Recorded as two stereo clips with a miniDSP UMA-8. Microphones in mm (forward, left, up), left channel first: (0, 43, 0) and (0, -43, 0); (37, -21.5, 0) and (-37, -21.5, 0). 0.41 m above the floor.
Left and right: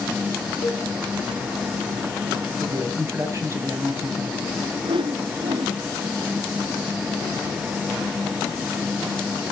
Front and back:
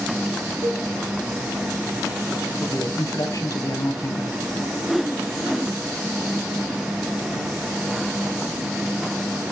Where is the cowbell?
155° left, 4 m.